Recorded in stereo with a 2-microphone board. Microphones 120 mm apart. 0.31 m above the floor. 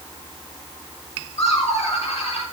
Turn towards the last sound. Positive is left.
turn(degrees=65)  # may be behind; listen again after turning